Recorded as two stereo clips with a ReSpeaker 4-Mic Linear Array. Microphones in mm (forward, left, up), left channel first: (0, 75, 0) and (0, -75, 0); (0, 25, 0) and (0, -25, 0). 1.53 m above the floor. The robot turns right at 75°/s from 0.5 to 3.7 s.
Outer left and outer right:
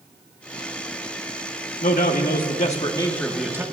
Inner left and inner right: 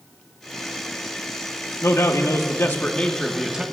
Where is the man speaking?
65° left, 1.4 m; by 3.6 s 160° right, 1.4 m.